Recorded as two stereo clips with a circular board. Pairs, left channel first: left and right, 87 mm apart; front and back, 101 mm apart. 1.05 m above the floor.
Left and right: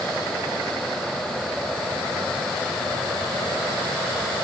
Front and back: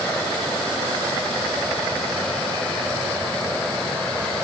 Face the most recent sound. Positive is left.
No sound to turn to.